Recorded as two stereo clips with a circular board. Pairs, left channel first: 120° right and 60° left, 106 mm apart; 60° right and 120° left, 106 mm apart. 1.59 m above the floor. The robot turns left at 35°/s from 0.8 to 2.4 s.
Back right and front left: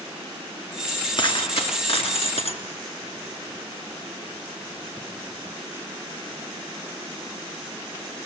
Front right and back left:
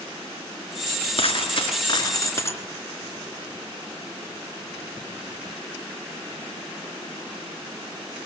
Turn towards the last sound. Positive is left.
turn(degrees=-120)